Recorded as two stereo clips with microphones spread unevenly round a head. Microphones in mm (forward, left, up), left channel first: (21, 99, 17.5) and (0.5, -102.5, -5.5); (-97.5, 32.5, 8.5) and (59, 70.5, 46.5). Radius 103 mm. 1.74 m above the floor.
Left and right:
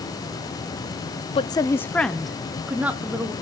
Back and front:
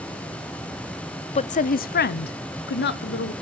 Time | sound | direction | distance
1.4 | a woman speaking | 140° left | 0.5 m